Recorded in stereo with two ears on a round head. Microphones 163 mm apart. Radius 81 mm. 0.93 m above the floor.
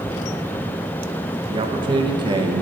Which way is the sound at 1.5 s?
25° right (ahead or behind).